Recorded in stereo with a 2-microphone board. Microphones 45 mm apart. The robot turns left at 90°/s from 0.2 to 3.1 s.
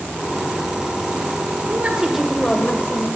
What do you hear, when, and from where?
1.7 s a woman speaking: 130° right, 1.7 m; by 3.1 s 105° left, 1.7 m